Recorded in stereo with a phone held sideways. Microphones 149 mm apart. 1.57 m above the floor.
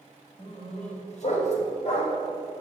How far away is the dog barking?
About 2 m.